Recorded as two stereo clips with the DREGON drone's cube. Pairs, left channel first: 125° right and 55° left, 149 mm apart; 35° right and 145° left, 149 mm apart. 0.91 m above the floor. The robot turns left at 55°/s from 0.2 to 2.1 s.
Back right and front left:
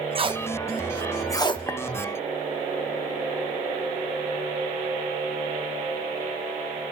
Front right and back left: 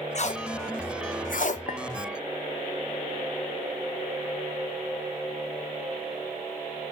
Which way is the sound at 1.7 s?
55° right.